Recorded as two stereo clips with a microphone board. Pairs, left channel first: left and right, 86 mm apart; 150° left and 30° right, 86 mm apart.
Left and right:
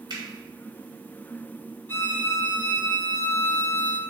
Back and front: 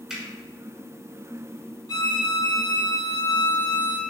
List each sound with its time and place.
0.1 s a finger snap: 115° right, 1.9 m
1.9 s a violin: 150° left, 0.9 m